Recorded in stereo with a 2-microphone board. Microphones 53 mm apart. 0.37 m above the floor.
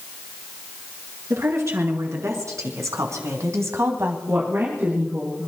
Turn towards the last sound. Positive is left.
turn(degrees=-50)  # may be behind; listen again after turning